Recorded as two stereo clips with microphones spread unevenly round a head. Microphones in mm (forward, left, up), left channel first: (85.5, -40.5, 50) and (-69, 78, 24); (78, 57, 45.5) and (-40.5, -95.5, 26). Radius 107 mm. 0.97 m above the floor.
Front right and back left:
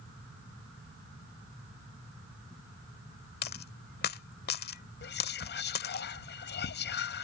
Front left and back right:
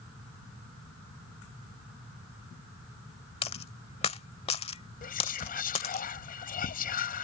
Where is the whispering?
Straight ahead.